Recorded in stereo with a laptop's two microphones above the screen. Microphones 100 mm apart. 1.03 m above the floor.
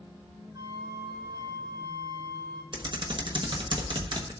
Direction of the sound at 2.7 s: 50° right (ahead or behind).